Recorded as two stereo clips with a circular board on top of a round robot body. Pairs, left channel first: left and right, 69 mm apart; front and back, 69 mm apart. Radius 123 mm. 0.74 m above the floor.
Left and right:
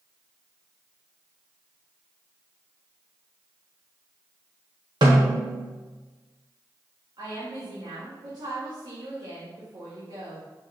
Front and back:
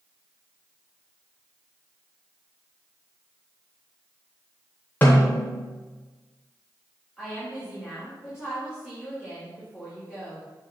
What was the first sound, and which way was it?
A snare drum, 65° right.